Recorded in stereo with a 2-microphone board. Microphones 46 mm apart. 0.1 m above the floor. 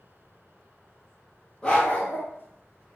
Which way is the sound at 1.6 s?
15° left (ahead or behind).